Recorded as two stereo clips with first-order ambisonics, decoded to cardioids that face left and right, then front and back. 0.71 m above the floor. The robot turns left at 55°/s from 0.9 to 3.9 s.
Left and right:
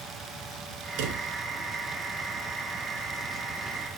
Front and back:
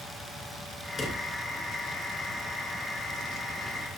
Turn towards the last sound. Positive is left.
turn(degrees=120)